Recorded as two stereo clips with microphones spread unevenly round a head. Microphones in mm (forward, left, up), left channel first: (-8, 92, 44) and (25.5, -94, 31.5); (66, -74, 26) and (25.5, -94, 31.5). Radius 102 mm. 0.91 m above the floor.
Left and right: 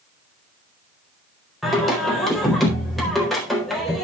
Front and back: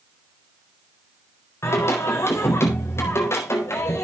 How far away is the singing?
About 4 m.